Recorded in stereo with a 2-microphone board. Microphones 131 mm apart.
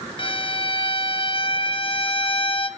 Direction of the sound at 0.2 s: 40° left (ahead or behind).